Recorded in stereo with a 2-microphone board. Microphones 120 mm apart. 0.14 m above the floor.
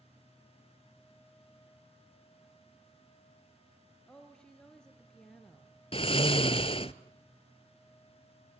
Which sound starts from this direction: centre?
A woman speaking, at 4.1 s.